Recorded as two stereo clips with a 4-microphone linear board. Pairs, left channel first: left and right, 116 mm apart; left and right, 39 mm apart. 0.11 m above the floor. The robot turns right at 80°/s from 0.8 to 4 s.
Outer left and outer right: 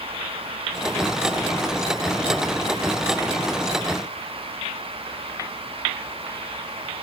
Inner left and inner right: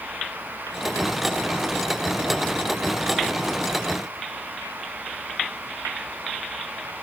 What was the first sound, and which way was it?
Only background noise.